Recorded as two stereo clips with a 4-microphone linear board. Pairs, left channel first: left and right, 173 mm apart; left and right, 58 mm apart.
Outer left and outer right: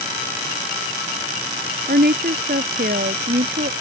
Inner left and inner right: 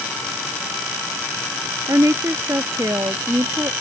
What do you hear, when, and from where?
1.9 s a woman speaking: 65° right (ahead or behind)